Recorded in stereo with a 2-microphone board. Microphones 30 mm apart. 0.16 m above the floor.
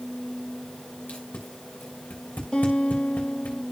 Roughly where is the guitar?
Left.